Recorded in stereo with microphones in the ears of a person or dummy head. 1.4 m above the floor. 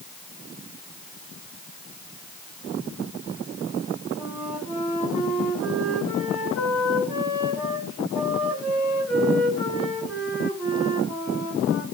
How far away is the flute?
About 8 m.